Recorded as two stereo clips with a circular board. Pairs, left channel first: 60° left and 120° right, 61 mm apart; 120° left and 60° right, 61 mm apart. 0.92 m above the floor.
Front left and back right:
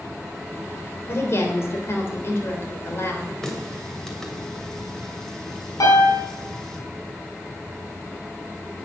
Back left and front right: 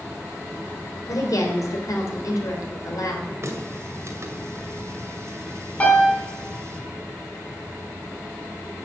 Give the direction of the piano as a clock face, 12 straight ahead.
10 o'clock.